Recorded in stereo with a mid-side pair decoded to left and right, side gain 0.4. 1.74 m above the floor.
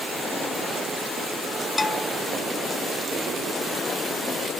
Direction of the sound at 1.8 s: 25° left.